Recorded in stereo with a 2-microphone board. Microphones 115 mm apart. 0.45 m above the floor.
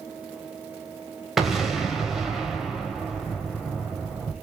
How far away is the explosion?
About 0.9 m.